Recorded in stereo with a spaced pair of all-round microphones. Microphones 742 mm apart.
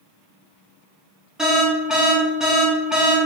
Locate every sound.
1.4 s an alarm: centre (ahead or behind), 0.7 m